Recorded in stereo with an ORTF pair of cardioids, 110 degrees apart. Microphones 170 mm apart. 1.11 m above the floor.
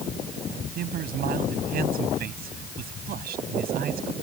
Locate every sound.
0.8 s a man speaking: 65° right